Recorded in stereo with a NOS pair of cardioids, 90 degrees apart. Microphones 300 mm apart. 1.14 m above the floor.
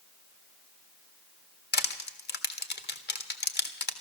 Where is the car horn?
No car horn in this recording.